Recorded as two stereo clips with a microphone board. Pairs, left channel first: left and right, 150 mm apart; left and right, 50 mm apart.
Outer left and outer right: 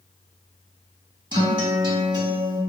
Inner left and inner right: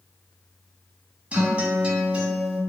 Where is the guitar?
30° right (ahead or behind), 0.6 m.